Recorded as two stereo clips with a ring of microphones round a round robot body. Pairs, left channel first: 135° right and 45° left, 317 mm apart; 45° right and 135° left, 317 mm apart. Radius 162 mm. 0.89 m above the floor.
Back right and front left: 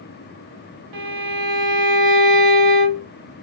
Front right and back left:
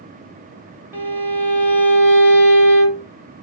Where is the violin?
50° left, 1.1 m.